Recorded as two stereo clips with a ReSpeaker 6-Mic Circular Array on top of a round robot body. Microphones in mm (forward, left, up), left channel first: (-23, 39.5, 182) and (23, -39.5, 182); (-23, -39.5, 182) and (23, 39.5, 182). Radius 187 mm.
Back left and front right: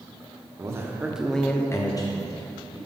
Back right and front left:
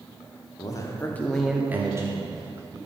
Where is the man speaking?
100° right, 1.4 m; by 2.8 s 95° left, 2 m.